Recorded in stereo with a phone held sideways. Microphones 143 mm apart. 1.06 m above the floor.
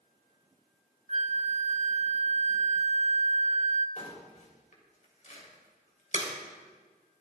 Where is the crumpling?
55° left (ahead or behind), 3 m.